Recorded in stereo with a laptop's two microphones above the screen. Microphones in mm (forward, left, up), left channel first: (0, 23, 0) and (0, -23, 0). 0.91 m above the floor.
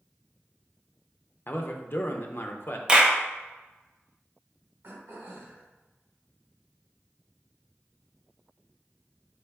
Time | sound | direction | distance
1.5 | a man speaking | 55° left (ahead or behind) | 0.5 m
2.9 | a clap | 20° right (ahead or behind) | 0.6 m
4.8 | throat clearing | 55° right (ahead or behind) | 1.2 m